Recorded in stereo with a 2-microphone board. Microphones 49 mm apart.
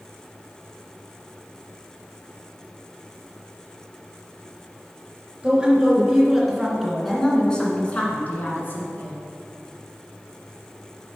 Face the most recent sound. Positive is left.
turn(degrees=45)  # may be behind; listen again after turning